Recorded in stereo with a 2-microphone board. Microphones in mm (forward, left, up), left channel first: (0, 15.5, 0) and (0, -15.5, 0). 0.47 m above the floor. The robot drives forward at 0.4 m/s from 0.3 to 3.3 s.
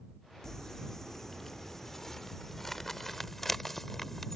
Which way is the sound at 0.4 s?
15° left (ahead or behind).